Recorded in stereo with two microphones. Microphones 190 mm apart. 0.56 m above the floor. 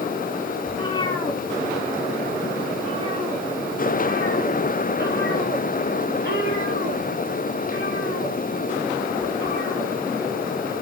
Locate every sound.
0.7 s a cat meowing: 30° left (ahead or behind), 2.0 m; by 9.9 s 80° right, 6.5 m